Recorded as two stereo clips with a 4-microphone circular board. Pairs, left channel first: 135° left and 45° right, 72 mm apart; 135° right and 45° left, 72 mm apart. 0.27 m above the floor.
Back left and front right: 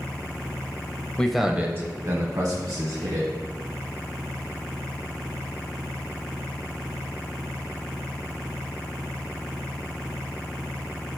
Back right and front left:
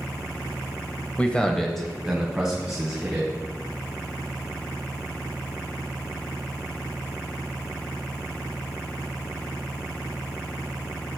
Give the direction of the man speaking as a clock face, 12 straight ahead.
6 o'clock.